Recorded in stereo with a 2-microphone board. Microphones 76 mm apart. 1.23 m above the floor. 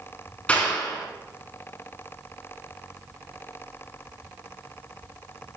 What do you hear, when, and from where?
0.5 s a clap: 20° left (ahead or behind), 9 m